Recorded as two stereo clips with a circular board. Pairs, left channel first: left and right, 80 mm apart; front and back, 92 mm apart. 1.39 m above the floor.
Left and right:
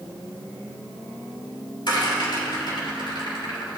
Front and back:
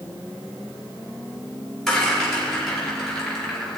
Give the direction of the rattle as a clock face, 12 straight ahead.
9 o'clock.